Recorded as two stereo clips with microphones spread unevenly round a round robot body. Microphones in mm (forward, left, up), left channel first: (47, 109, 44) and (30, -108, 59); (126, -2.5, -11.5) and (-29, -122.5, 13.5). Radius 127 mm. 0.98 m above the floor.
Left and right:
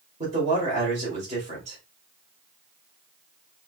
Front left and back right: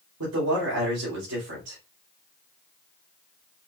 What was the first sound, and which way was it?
A man speaking, 160° right.